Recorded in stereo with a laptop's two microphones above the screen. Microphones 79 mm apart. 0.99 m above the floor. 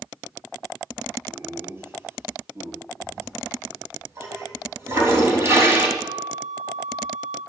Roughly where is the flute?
Right.